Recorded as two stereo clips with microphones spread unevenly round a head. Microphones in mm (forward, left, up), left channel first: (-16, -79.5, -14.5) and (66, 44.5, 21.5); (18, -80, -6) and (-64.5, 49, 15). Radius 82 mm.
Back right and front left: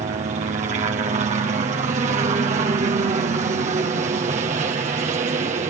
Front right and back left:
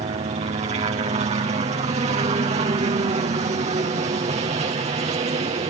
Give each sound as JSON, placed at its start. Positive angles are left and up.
{"t": 0.0, "sound": "a helicopter", "azimuth_deg": 90}